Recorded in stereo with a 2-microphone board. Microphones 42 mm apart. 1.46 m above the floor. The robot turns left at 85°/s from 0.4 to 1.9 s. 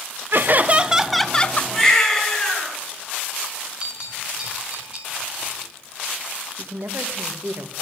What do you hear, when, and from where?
0.3 s laughter: 115° right, 0.6 m; by 1.6 s 140° left, 0.6 m
1.7 s a baby crying: 5° right (ahead or behind), 8 m; by 2.7 s 10° left (ahead or behind), 8 m
3.8 s a bell: 25° right (ahead or behind), 8 m
6.6 s a man speaking: 70° right (ahead or behind), 1.4 m